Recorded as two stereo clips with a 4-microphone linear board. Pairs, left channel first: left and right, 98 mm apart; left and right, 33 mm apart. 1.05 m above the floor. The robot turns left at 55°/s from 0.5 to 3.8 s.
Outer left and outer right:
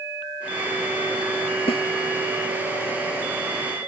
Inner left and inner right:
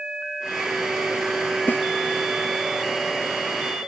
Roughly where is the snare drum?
Left.